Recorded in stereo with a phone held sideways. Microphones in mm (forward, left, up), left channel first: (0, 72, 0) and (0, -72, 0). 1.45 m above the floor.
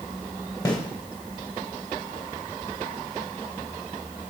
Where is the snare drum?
25° left (ahead or behind), 3.5 m.